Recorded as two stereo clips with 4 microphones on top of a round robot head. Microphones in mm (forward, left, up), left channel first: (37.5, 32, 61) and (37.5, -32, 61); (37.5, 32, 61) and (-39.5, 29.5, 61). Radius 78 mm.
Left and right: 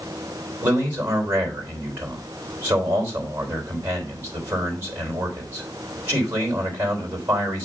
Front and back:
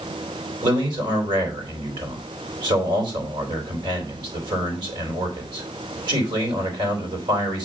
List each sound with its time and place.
0.6 s a man speaking: 150° right, 3 m